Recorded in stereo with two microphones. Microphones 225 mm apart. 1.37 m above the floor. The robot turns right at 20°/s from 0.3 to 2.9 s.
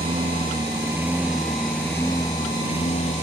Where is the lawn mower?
25° right; by 3.2 s 30° left.